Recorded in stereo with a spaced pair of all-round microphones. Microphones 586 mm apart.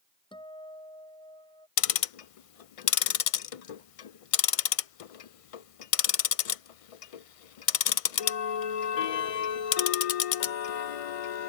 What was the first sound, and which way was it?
A guitar, 10° left (ahead or behind).